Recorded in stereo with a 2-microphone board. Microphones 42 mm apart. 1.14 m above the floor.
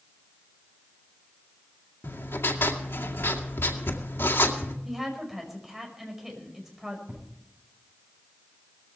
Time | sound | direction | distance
2.0 | writing | 70° left (ahead or behind) | 2 m
4.8 | a woman speaking | 5° right (ahead or behind) | 5.5 m
7.1 | an explosion | 50° right (ahead or behind) | 10 m